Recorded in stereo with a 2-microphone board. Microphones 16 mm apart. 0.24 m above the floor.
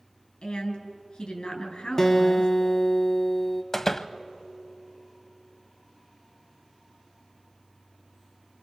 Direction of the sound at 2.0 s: 25° left (ahead or behind).